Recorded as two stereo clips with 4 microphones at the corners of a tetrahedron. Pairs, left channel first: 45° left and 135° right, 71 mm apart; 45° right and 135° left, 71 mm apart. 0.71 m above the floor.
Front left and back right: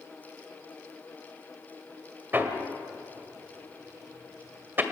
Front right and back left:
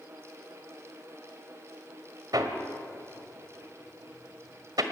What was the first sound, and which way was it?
Hammering, 165° left.